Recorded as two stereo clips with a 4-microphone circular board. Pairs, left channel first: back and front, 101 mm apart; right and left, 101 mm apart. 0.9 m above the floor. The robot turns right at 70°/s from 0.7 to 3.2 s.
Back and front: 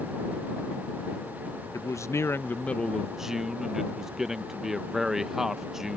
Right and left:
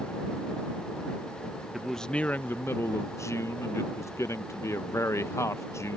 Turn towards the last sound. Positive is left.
turn(degrees=-80)